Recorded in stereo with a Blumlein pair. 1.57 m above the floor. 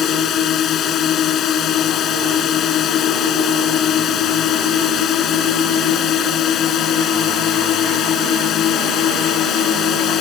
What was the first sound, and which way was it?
A drone, 30° left.